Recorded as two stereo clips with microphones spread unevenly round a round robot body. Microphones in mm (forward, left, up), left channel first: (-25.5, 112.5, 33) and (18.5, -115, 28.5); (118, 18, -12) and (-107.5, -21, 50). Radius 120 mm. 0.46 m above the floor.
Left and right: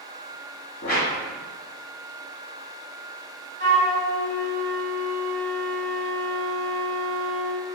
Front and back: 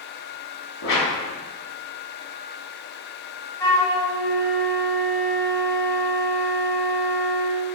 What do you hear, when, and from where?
0.8 s a whoosh: 45° left, 1.2 m
3.6 s a flute: 40° right, 0.9 m